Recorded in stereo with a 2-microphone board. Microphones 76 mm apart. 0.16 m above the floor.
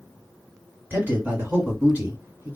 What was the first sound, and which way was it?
A man speaking, 25° right (ahead or behind).